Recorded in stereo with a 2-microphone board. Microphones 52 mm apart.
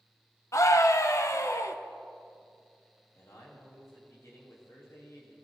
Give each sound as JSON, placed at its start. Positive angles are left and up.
{"t": 0.5, "sound": "a scream", "side_deg": 75, "distance_m": 0.9}
{"t": 3.1, "sound": "a man speaking", "side_deg": 75, "distance_m": 3.0}